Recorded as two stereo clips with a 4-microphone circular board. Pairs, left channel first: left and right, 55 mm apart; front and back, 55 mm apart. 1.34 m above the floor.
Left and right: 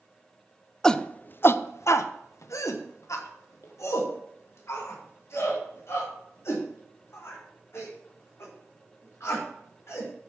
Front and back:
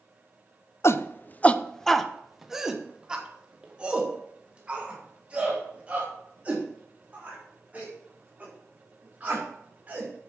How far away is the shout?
About 0.5 m.